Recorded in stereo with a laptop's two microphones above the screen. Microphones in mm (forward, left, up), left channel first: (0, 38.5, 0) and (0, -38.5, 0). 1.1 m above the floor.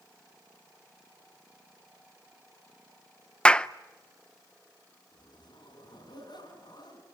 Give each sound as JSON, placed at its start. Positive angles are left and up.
{"t": 3.5, "sound": "a clap", "side_deg": 15, "distance_m": 0.5}
{"t": 5.1, "sound": "a zipper", "side_deg": 70, "distance_m": 7.0}